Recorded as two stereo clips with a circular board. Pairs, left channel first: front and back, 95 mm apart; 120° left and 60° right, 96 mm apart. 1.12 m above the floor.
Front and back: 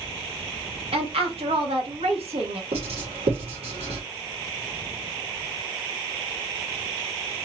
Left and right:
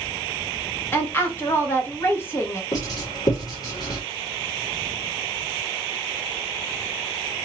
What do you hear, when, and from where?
0.9 s a woman speaking: 175° right, 1.4 m
2.7 s writing: 170° left, 2.5 m